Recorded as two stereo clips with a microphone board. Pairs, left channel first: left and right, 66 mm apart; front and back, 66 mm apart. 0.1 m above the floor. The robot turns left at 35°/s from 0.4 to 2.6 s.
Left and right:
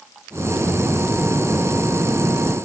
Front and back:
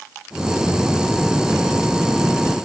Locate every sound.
Only background noise.